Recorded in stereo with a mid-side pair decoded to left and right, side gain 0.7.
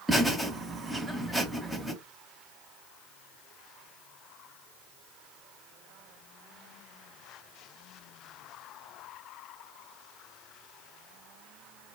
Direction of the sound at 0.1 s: 5° right.